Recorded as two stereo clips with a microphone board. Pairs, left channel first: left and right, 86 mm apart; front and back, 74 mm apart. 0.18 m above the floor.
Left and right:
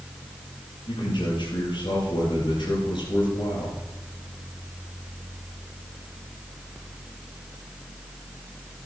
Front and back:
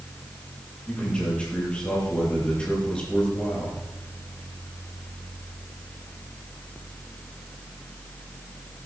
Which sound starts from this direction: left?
A man speaking, at 0.9 s.